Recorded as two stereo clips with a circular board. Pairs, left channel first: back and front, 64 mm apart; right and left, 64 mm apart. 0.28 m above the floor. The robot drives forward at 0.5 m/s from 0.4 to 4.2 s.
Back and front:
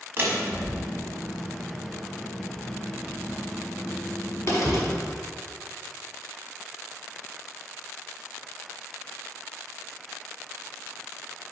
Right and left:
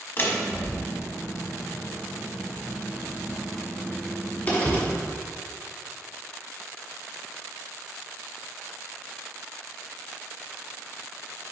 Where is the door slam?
45° right, 1.2 m; by 4.9 s 145° right, 1.5 m.